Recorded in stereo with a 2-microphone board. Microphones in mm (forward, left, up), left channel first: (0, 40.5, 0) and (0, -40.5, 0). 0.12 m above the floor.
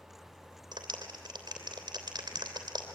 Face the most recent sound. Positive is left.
turn(degrees=-55)  # may be behind; listen again after turning